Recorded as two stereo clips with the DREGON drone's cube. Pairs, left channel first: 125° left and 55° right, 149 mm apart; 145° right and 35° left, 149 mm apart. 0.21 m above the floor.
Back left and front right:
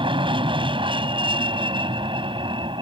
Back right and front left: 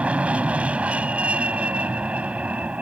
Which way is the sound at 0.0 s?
40° right.